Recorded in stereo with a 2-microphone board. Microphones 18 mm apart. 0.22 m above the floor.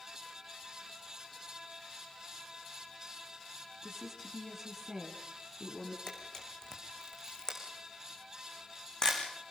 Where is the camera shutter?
35° left (ahead or behind), 5 m.